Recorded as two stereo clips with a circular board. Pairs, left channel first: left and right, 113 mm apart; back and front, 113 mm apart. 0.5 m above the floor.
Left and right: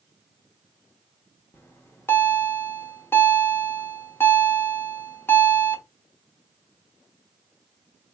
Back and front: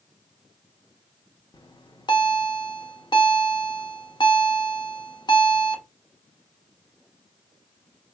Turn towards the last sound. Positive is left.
turn(degrees=155)